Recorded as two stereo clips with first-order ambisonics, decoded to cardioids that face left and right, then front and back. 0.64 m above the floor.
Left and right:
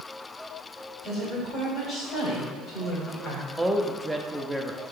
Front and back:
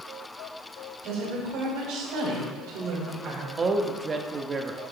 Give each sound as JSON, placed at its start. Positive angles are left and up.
{"t": 1.0, "sound": "a woman speaking", "azimuth_deg": 160, "distance_m": 3.5}
{"t": 3.6, "sound": "a man speaking", "azimuth_deg": -165, "distance_m": 0.6}